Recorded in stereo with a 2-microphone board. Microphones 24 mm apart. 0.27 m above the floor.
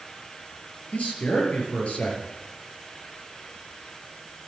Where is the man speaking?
70° left (ahead or behind), 5 m.